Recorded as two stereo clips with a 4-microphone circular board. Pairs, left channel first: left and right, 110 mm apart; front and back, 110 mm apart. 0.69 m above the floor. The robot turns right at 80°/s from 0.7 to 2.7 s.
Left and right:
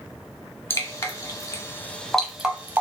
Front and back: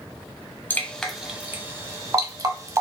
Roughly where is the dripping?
Ahead left.